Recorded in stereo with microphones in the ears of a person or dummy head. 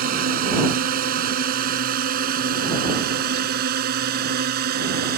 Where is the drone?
55° right (ahead or behind).